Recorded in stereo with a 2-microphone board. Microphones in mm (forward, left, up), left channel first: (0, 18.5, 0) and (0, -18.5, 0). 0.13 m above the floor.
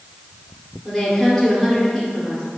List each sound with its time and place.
0.8 s a woman speaking: 5° right (ahead or behind), 2 m